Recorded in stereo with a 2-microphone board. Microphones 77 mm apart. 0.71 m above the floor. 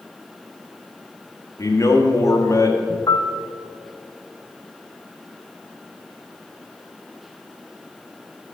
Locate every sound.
1.6 s a man speaking: 40° left (ahead or behind), 1.5 m
3.1 s a piano: 50° left (ahead or behind), 0.6 m